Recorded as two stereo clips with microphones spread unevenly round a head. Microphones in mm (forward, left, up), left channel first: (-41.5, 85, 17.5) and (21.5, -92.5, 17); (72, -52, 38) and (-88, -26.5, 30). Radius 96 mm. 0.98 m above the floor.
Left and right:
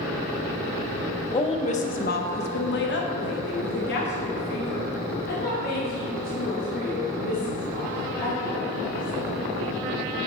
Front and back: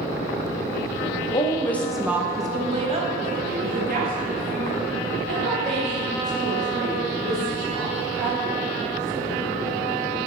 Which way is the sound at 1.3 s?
50° left.